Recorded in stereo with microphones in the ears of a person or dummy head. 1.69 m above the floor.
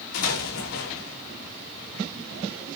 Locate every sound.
0.1 s an explosion: 80° left, 4 m